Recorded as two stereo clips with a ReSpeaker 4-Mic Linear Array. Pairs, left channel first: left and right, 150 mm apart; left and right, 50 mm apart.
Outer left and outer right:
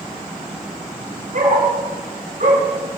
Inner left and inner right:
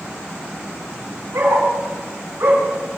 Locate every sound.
1.3 s a dog barking: 60° right (ahead or behind), 6 m; by 3.0 s 50° right (ahead or behind), 4.5 m